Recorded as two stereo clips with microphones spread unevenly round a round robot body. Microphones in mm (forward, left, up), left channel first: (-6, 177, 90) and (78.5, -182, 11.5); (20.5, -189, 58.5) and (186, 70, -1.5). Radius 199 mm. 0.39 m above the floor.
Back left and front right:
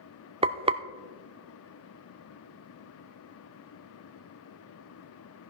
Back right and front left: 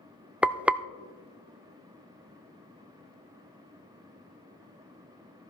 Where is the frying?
20° right, 0.5 m.